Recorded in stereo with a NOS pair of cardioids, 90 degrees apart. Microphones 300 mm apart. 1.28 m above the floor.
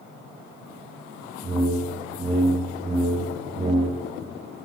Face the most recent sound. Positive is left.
turn(degrees=-20)